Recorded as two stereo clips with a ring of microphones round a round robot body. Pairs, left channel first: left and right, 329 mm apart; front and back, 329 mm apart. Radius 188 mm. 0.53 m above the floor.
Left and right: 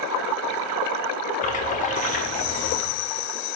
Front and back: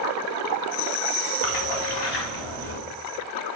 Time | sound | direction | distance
1.4 | a splash | 20° left | 0.8 m